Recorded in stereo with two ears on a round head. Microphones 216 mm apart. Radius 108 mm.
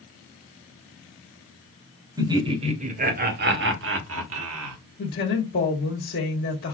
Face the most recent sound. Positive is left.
turn(degrees=45)  # may be behind; listen again after turning